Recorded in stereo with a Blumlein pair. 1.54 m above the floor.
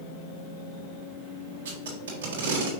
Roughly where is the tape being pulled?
Ahead right.